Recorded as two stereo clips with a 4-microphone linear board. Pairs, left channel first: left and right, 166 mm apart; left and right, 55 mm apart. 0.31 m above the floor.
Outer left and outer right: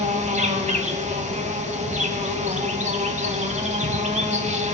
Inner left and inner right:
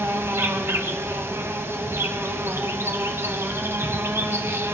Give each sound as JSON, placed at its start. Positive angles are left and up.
{"t": 0.0, "sound": "an insect", "side_deg": -40, "distance_m": 1.1}